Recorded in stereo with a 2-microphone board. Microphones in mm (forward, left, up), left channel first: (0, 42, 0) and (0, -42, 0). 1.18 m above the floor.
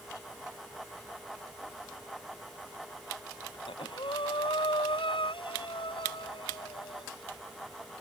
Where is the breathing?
90° left.